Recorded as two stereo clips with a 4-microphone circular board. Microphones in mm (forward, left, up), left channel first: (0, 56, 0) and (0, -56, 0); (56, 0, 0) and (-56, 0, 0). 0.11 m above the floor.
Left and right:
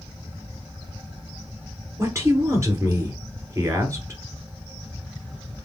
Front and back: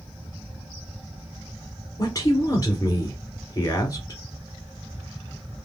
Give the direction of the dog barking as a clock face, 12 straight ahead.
I don't hear a dog barking.